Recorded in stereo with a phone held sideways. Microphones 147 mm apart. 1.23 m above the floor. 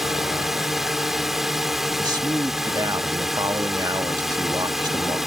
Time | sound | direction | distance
0.0 | a drone | centre (ahead or behind) | ?
2.0 | a man speaking | 30° right (ahead or behind) | ?